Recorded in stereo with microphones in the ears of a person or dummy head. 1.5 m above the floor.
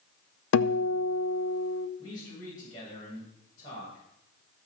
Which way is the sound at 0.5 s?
70° left (ahead or behind).